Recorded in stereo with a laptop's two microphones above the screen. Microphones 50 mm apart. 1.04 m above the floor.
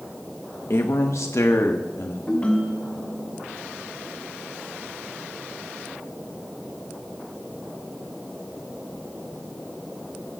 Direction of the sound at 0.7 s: 60° left (ahead or behind).